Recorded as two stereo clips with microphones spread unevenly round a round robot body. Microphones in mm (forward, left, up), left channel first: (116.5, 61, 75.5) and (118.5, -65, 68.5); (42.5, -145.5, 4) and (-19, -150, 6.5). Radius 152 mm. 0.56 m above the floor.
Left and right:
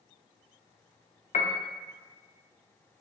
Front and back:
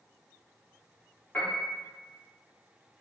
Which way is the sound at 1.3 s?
75° left.